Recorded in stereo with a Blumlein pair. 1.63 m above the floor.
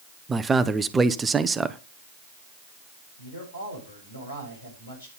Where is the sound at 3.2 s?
70° left, 8 m.